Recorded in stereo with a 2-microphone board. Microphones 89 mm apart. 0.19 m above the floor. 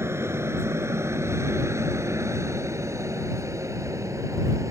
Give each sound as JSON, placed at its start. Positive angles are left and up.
{"t": 0.0, "sound": "an aircraft", "side_deg": -30}